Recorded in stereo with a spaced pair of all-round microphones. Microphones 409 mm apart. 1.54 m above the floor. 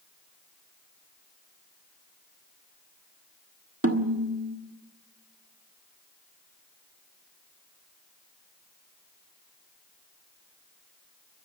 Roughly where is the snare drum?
Right.